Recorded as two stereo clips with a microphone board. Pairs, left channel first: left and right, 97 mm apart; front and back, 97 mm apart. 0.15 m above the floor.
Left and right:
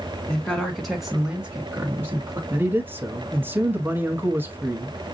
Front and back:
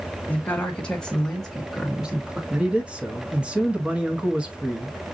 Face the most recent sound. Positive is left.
turn(degrees=-120)